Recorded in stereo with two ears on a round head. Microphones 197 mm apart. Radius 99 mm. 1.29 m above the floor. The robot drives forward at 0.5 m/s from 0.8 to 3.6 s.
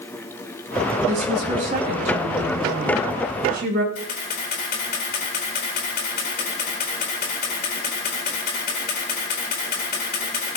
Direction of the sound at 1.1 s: 35° right (ahead or behind).